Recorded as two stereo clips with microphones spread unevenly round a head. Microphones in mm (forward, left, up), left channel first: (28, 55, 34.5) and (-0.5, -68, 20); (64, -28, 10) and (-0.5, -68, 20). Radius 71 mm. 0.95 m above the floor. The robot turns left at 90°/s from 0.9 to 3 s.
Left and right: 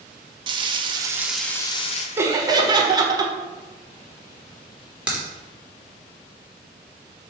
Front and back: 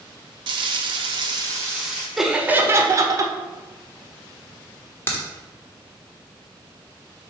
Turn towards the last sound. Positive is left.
turn(degrees=-25)